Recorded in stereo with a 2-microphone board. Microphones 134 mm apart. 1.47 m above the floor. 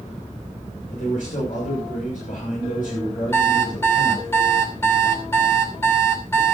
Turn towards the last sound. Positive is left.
turn(degrees=20)  # may be behind; listen again after turning